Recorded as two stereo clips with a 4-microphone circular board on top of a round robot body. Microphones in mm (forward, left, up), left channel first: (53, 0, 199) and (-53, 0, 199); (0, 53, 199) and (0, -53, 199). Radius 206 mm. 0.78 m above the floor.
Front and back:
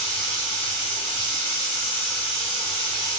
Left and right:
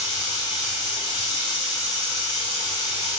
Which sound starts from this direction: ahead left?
Running water, at 0.0 s.